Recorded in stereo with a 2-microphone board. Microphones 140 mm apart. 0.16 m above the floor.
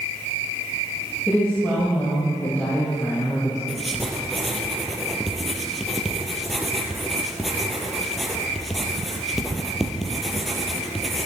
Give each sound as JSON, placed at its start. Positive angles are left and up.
{"t": 1.3, "sound": "a woman speaking", "side_deg": 10, "distance_m": 5.5}
{"t": 3.7, "sound": "writing", "side_deg": 0, "distance_m": 1.9}